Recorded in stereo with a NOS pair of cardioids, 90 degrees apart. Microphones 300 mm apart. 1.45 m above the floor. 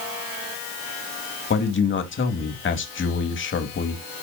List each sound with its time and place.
1.5 s a man speaking: 40° left, 2.5 m